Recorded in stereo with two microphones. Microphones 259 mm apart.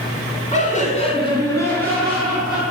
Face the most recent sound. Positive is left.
turn(degrees=-5)  # may be behind; listen again after turning